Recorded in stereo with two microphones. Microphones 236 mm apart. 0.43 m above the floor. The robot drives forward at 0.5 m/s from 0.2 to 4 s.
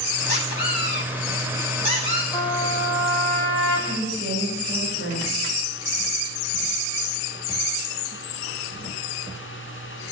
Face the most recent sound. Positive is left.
turn(degrees=-55)  # may be behind; listen again after turning